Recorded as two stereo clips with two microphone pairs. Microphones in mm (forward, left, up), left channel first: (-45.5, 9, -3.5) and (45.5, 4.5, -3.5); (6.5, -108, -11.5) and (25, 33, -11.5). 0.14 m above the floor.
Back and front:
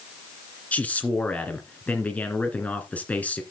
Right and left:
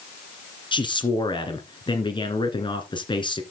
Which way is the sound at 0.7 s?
120° right.